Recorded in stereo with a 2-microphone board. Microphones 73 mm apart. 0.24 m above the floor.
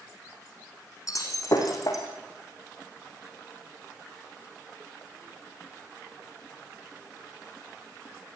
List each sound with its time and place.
1.1 s breaking glass: 50° left (ahead or behind), 4.5 m